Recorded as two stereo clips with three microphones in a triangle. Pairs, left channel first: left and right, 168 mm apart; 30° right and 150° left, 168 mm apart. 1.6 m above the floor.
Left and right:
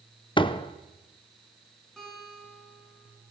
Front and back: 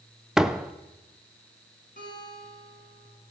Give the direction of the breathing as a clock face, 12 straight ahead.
No breathing in this recording.